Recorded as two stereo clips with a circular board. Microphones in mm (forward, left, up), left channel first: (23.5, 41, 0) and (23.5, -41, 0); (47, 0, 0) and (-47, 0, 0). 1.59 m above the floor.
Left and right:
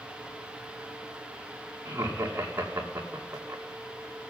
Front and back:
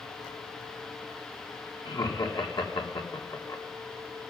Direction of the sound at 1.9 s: 30° right.